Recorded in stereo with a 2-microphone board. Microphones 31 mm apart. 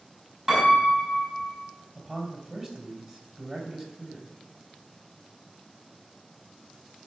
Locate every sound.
0.5 s a piano: 20° right (ahead or behind), 5 m
1.9 s a man speaking: 25° right (ahead or behind), 3.5 m